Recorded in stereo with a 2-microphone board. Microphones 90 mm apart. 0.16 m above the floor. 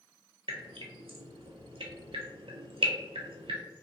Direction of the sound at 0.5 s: 80° right.